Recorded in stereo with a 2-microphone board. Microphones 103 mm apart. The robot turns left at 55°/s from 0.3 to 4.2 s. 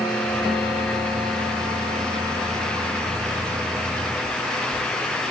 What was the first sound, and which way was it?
Only background noise.